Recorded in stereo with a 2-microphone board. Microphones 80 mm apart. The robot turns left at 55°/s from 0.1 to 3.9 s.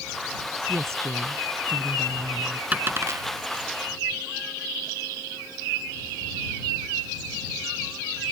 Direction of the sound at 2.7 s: 20° right (ahead or behind).